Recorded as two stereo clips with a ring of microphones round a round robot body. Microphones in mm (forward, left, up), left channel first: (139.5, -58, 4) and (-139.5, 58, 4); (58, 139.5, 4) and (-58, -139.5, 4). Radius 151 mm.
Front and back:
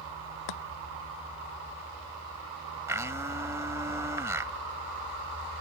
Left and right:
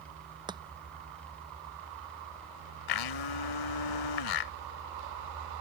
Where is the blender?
75° left.